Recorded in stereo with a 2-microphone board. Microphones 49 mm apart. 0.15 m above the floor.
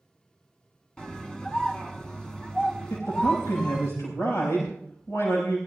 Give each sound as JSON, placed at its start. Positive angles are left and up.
{"t": 1.0, "sound": "a scream", "side_deg": 15, "distance_m": 1.4}
{"t": 2.9, "sound": "a man speaking", "side_deg": 75, "distance_m": 6.0}